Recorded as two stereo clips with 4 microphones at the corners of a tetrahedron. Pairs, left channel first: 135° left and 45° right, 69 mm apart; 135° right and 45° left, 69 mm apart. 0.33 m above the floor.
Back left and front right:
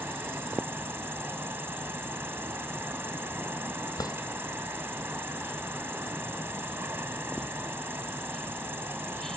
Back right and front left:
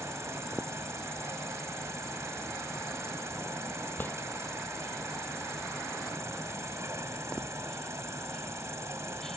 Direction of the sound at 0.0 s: 5° left.